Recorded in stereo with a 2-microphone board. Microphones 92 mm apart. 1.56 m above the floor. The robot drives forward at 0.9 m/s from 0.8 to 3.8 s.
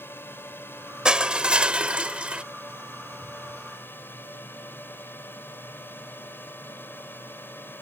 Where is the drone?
25° left (ahead or behind).